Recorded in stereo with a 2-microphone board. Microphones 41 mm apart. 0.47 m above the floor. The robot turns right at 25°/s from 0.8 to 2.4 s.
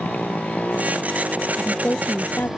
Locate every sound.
0.0 s a motorcycle: 140° left; by 2.6 s straight behind
1.6 s a woman speaking: 35° left (ahead or behind); by 2.5 s 55° left (ahead or behind)